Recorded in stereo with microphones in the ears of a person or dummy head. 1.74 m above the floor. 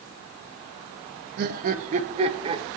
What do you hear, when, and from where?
1.4 s laughter: 55° right (ahead or behind), 1.1 m; by 2.6 s 25° right (ahead or behind), 1.3 m